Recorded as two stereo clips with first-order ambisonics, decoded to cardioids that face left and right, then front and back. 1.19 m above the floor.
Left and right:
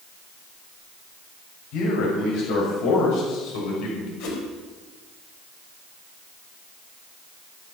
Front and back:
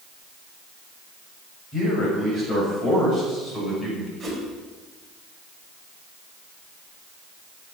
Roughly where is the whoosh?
Left.